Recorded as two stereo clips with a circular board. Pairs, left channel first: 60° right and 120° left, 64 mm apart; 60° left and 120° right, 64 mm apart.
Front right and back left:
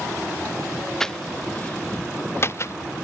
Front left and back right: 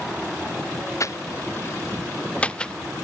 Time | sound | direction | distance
1.0 | footsteps | 20° left | ?